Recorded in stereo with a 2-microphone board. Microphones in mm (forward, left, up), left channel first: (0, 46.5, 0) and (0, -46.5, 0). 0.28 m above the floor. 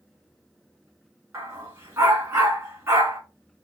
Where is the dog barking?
30° right (ahead or behind), 1.1 m.